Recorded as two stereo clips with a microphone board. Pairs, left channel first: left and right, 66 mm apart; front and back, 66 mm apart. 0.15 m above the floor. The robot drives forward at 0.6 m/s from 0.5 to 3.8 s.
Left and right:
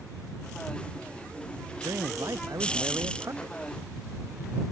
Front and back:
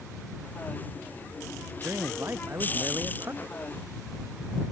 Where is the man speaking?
125° right; by 3.5 s 130° right.